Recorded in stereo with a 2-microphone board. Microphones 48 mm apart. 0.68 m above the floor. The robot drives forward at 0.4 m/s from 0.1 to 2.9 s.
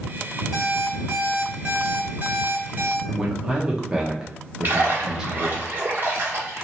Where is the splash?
45° right (ahead or behind), 1.4 m.